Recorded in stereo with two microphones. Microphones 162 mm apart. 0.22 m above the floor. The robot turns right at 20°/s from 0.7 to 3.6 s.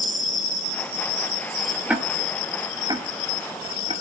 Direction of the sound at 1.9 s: 5° right (ahead or behind).